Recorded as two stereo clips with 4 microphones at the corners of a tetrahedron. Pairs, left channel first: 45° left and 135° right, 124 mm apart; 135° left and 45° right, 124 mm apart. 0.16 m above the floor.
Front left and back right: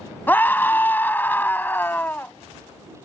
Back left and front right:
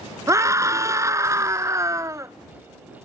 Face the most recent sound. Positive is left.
turn(degrees=-15)